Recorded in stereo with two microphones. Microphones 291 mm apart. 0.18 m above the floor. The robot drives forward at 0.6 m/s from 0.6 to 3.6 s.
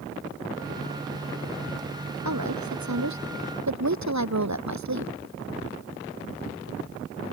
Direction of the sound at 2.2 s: 75° right (ahead or behind).